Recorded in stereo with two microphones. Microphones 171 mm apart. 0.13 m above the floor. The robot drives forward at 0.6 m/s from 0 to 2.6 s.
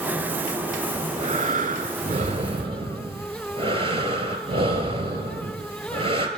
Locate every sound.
0.9 s breathing: 40° right (ahead or behind), 0.7 m; by 6.3 s 35° right (ahead or behind), 0.8 m